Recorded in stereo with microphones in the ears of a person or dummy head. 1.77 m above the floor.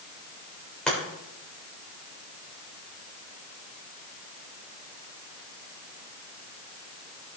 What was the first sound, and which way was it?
Chopping, 5° left (ahead or behind).